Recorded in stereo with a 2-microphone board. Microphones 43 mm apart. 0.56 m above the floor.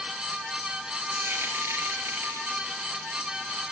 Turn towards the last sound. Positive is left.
turn(degrees=-65)  # may be behind; listen again after turning